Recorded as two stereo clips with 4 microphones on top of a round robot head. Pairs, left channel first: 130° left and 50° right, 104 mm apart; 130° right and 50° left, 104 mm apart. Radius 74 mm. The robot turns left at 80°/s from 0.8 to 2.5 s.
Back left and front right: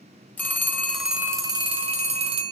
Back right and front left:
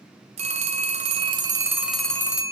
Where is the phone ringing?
55° left, 1.0 m; by 2.5 s 80° right, 1.0 m.